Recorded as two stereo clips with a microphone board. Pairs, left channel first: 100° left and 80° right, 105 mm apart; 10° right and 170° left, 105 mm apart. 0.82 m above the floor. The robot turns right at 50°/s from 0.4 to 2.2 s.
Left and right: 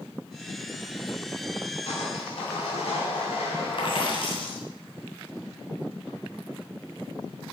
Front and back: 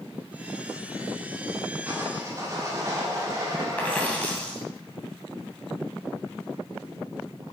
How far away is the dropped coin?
About 2.5 m.